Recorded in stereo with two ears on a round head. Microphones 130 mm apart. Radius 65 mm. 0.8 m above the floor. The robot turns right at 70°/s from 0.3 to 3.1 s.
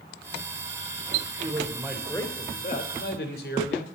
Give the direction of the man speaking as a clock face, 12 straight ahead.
1 o'clock.